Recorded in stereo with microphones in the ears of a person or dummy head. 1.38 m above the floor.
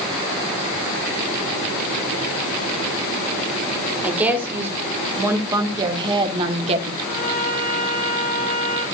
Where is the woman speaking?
15° right (ahead or behind), 3 m; by 6.9 s 40° right (ahead or behind), 1.9 m.